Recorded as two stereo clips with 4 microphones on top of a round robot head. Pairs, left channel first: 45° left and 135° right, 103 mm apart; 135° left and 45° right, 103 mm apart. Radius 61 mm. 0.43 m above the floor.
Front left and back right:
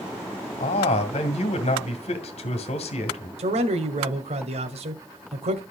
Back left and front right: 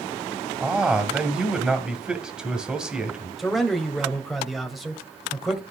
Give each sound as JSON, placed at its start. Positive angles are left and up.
{"t": 0.6, "sound": "a man speaking", "azimuth_deg": 35, "distance_m": 1.6}
{"t": 3.4, "sound": "a man speaking", "azimuth_deg": -135, "distance_m": 1.9}